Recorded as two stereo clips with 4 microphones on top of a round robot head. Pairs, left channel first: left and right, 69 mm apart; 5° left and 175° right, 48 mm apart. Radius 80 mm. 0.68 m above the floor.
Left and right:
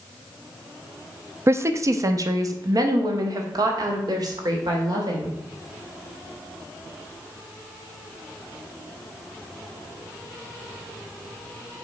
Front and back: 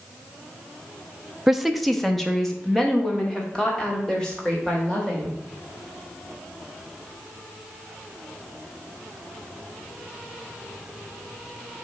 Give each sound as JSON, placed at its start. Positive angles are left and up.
{"t": 1.5, "sound": "a woman speaking", "azimuth_deg": -95, "distance_m": 0.6}